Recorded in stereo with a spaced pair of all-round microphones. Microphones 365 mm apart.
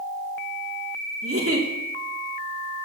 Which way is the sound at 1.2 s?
40° right (ahead or behind).